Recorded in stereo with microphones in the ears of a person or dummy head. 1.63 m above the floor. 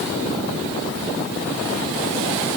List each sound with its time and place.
Only background noise.